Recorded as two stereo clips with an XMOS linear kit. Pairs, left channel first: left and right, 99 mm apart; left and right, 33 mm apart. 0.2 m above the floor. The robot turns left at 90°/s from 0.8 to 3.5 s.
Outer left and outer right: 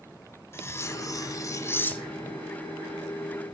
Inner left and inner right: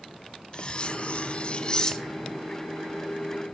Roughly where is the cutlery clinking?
Behind left.